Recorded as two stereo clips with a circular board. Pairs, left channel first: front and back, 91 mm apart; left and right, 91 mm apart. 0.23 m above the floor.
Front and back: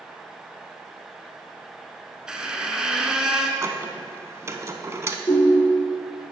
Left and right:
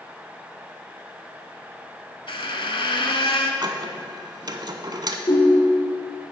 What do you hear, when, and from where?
2.3 s a squeak: 100° left, 0.8 m
3.6 s a squeak: 125° right, 0.6 m
5.3 s a ringtone: 55° left, 2.5 m